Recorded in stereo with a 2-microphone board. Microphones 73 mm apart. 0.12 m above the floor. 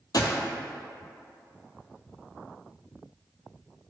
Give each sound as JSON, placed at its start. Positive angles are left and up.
{"t": 0.1, "sound": "a gunshot", "side_deg": 60, "distance_m": 0.8}